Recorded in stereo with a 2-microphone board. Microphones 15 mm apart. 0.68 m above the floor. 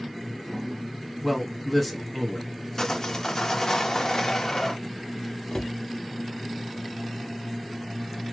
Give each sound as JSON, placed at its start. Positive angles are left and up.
{"t": 1.2, "sound": "a man speaking", "side_deg": 0, "distance_m": 1.2}
{"t": 2.8, "sound": "sawing", "side_deg": 40, "distance_m": 0.8}
{"t": 5.5, "sound": "a cupboard door", "side_deg": 60, "distance_m": 0.6}